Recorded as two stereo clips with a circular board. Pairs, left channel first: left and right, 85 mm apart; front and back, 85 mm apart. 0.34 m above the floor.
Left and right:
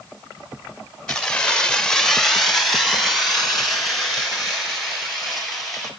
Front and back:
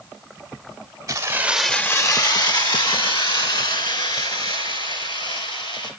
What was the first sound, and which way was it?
Keys jangling, 165° left.